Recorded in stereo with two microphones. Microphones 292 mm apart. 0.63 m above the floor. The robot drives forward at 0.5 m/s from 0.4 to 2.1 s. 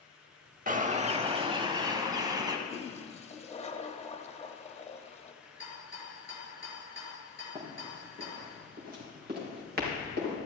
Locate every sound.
0.7 s a bird: 30° right (ahead or behind), 0.6 m; by 2.6 s 15° right (ahead or behind), 1.3 m
2.7 s a toilet flushing: 20° left (ahead or behind), 0.9 m
5.4 s a rattle: 45° left (ahead or behind), 4.5 m
7.5 s running footsteps: 25° right (ahead or behind), 4.5 m; by 10.3 s 35° right (ahead or behind), 6 m